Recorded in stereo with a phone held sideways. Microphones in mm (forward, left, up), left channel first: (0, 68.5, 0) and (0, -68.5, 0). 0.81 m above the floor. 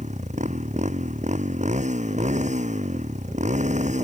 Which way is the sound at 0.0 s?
55° right (ahead or behind).